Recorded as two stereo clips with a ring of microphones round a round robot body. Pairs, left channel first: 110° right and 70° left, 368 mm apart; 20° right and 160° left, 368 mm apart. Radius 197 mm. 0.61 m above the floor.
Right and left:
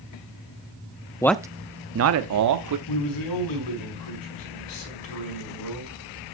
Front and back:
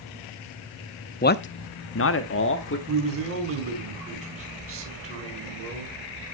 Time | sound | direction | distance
1.2 | a man speaking | 45° right | 0.6 m
2.9 | a man speaking | 145° right | 5 m